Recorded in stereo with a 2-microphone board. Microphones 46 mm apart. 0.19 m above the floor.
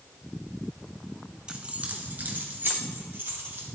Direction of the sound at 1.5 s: 15° right (ahead or behind).